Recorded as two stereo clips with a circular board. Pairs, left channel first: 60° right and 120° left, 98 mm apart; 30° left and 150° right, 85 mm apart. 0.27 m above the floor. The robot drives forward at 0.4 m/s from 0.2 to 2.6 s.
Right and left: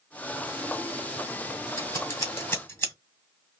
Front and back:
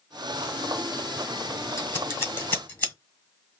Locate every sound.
1.8 s scissors: 10° right, 1.4 m; by 2.9 s 20° right, 1.2 m